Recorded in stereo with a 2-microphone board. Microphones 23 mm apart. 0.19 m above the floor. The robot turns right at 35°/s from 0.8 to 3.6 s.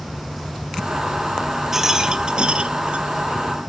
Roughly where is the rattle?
Behind.